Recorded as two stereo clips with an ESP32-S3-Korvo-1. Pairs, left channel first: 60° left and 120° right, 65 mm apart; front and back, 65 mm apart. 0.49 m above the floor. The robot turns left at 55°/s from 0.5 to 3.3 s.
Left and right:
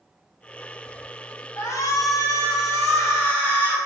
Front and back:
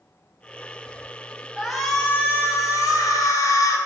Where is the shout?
95° left, 3.5 m; by 3.8 s straight ahead, 3.5 m.